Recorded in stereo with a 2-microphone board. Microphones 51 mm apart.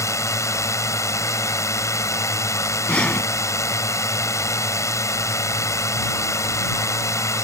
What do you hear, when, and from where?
0.0 s a drone: 85° left
2.9 s breathing: 25° left (ahead or behind)